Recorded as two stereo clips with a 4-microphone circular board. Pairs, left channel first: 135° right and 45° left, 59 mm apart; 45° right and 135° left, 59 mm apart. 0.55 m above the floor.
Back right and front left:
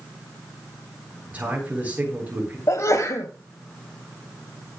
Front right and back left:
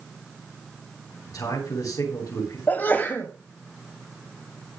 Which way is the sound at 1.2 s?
25° right.